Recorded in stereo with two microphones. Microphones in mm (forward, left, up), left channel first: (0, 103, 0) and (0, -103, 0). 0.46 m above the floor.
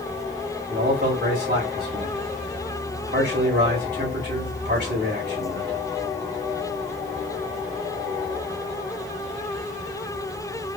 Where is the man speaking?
55° right (ahead or behind), 2.0 m.